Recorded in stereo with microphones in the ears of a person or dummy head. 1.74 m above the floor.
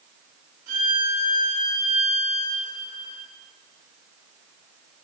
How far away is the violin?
About 3 m.